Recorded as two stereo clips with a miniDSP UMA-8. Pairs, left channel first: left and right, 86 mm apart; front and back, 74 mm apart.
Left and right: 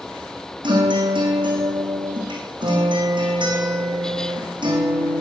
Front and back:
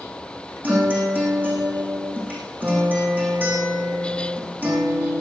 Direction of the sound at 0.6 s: 115° right.